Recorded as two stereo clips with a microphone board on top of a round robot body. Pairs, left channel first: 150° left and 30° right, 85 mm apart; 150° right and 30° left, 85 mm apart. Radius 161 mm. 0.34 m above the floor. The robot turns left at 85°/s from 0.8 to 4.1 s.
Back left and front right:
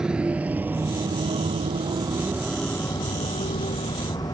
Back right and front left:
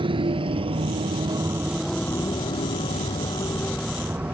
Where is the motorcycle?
50° left; by 4.3 s 105° left.